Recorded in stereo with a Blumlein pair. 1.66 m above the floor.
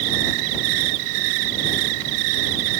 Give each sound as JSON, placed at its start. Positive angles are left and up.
{"t": 0.0, "sound": "an insect", "azimuth_deg": -45}